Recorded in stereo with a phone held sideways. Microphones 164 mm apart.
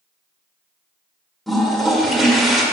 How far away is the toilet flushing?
About 1.7 m.